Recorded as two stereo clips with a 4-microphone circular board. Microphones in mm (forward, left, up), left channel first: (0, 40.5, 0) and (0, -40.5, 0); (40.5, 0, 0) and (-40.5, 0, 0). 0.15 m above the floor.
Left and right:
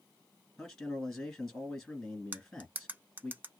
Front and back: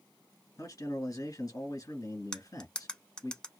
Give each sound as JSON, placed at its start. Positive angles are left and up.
{"t": 0.6, "sound": "a man speaking", "azimuth_deg": 5, "distance_m": 1.6}
{"t": 2.3, "sound": "cutlery clinking", "azimuth_deg": -65, "distance_m": 0.6}